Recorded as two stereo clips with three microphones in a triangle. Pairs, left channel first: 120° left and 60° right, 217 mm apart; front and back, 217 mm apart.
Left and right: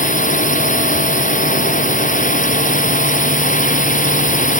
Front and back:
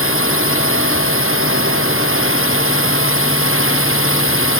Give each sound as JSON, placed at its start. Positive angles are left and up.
{"t": 0.0, "sound": "a drone", "azimuth_deg": 170}